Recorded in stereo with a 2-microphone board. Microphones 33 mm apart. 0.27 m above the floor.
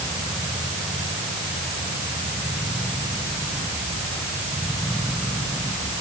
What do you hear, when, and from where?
Only background noise.